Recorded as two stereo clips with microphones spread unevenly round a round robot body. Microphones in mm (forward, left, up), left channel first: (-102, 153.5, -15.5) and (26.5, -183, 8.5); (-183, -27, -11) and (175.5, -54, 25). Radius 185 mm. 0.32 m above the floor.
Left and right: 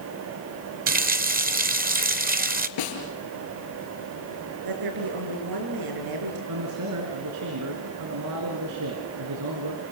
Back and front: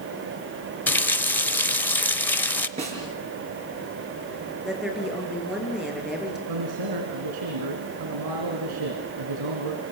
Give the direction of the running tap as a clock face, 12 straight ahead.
4 o'clock.